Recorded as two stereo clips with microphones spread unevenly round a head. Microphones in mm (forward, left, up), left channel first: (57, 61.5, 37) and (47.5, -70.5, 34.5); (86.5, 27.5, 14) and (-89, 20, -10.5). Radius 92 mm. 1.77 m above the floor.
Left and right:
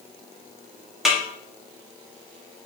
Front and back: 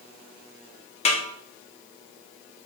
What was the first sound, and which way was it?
A snare drum, 5° right.